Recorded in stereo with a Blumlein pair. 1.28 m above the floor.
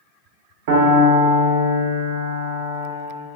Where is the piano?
50° right, 0.6 m.